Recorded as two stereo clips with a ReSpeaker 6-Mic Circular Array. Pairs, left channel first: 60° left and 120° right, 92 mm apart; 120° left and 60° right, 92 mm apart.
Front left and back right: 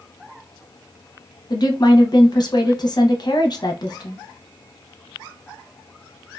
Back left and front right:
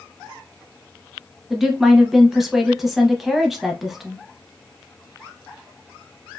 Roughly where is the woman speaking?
Ahead left.